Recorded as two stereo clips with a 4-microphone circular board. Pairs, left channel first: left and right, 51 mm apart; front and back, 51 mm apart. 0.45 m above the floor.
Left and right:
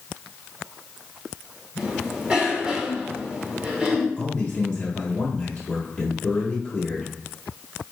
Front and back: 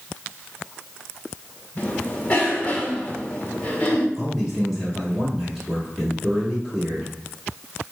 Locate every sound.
1.8 s a cough: 30° right, 1.0 m
4.2 s a man speaking: 85° left, 1.1 m